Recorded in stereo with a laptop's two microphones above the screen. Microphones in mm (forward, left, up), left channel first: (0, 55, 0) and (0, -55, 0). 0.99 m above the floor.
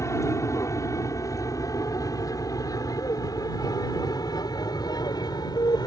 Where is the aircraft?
30° left (ahead or behind); by 5.9 s 40° left (ahead or behind).